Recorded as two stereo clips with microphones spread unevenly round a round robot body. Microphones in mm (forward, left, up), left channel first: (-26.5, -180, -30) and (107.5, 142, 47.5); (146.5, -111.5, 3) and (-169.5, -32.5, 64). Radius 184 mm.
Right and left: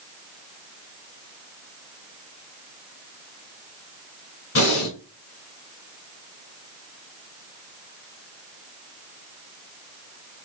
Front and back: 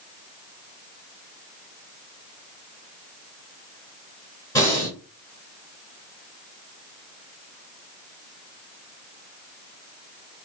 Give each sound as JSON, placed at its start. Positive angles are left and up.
{"t": 4.5, "sound": "breathing", "azimuth_deg": -85, "distance_m": 2.5}